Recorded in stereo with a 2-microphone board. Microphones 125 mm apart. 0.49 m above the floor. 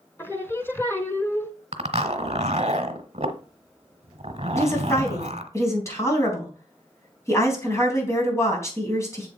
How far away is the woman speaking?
About 4 m.